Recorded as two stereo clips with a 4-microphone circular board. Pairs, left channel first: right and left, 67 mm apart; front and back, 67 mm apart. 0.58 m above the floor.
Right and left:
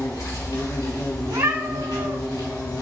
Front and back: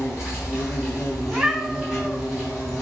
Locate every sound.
0.0 s an insect: 95° right, 3.5 m
1.2 s a cat meowing: 105° left, 1.4 m